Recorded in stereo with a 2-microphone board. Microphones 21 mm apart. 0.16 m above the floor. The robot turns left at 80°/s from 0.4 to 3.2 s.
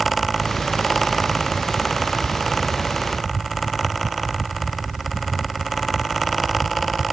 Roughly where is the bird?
No bird in this recording.